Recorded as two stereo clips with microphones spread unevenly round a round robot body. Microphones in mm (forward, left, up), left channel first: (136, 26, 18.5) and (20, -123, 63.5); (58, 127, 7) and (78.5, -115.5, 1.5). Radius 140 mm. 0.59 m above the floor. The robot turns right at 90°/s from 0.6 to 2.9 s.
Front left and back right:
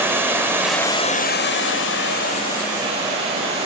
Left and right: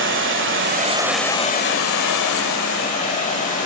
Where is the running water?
45° right, 1.5 m; by 3.7 s 160° left, 1.5 m.